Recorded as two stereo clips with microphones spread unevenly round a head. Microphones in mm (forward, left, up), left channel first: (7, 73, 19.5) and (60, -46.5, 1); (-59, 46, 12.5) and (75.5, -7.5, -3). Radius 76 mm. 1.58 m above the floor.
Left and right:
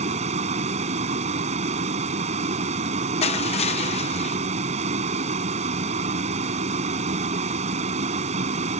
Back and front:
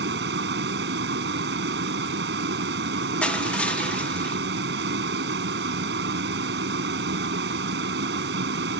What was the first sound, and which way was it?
A vehicle, 35° right.